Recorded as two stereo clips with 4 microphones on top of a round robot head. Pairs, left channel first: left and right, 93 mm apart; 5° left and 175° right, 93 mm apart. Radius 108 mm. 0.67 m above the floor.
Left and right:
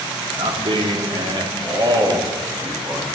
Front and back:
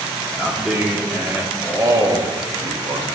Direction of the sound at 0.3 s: 95° right.